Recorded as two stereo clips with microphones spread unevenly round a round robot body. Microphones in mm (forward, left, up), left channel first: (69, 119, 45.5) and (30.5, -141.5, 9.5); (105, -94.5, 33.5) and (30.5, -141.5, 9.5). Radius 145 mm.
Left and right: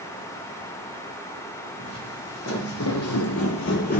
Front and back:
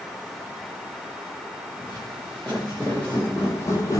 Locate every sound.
1.8 s footsteps: 120° left, 1.8 m; by 4.0 s 40° left, 0.6 m